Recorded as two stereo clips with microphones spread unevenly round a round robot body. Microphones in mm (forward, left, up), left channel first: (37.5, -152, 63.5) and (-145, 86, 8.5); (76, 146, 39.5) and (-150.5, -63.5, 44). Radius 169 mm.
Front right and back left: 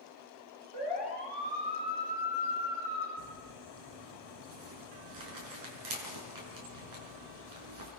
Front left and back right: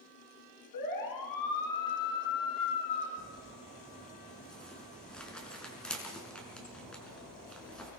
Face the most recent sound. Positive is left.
turn(degrees=130)